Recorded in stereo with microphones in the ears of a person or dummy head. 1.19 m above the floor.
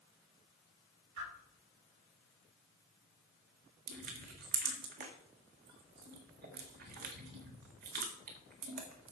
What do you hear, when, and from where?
1.2 s a whoosh: 60° right (ahead or behind), 5 m
3.9 s crushing: 50° right (ahead or behind), 1.7 m